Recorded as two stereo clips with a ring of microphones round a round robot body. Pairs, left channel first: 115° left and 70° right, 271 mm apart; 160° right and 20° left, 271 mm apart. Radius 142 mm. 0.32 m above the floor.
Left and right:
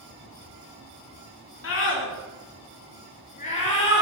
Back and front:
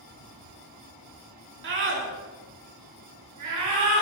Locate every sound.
1.6 s a scream: 70° left, 3 m; by 4.0 s 45° left, 4.5 m